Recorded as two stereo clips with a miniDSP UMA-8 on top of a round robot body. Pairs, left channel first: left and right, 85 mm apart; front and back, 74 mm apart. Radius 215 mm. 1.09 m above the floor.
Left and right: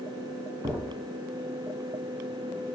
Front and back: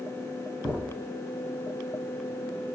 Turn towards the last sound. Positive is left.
turn(degrees=-60)